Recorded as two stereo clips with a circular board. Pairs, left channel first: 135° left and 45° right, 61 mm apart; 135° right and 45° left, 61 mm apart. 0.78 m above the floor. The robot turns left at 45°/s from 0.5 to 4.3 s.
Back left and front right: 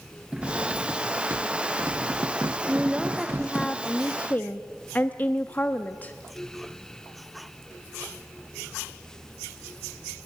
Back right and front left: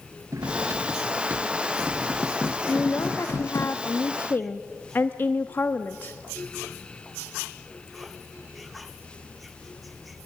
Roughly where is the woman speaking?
Right.